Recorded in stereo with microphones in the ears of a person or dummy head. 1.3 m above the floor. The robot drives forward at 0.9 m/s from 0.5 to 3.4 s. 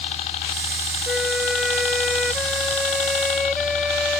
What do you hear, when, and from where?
0.0 s a helicopter: 40° left (ahead or behind); by 4.2 s 45° left (ahead or behind)
1.1 s a flute: 5° right (ahead or behind); by 4.2 s centre (ahead or behind)